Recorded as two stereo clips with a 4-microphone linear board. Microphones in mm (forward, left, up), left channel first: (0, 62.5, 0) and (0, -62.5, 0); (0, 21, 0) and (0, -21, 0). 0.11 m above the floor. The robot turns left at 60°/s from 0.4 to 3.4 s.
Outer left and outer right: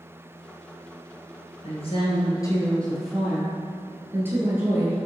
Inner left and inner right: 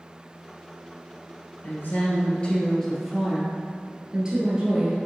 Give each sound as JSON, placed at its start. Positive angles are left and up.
{"t": 1.6, "sound": "a woman speaking", "azimuth_deg": 85, "distance_m": 1.9}